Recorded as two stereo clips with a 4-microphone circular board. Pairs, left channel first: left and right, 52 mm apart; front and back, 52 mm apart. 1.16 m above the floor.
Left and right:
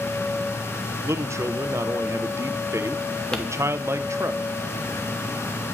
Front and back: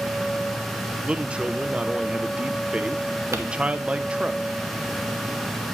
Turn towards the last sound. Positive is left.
turn(degrees=165)